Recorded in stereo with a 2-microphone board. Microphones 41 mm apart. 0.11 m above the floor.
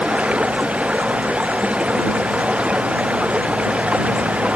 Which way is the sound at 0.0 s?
30° right (ahead or behind).